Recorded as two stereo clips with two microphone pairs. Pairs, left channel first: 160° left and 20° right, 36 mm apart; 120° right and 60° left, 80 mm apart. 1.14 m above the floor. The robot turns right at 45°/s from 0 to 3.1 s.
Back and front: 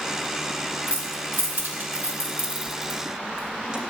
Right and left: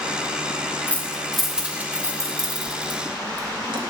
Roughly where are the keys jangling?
Ahead right.